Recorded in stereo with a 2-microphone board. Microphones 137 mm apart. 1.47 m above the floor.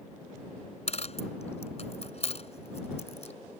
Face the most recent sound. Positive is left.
turn(degrees=50)  # may be behind; listen again after turning